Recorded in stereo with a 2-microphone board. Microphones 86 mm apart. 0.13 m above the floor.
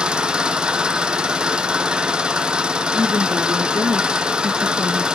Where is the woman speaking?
40° right (ahead or behind), 2.5 m.